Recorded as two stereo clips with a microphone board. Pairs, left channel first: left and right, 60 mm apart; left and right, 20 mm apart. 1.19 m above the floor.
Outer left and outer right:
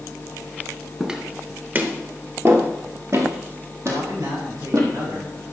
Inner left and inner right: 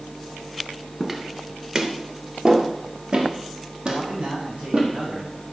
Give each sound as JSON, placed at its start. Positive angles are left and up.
{"t": 1.0, "sound": "footsteps", "side_deg": -10, "distance_m": 1.3}
{"t": 3.9, "sound": "a man speaking", "side_deg": -75, "distance_m": 6.0}